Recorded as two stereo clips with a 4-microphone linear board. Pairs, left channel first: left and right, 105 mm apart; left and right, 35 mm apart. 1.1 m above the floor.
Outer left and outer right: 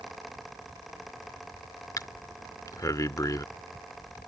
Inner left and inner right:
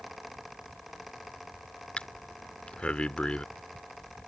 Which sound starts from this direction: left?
Breathing, at 2.0 s.